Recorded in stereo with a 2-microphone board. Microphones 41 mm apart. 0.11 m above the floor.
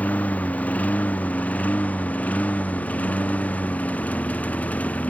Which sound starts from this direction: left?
A lawn mower, at 0.0 s.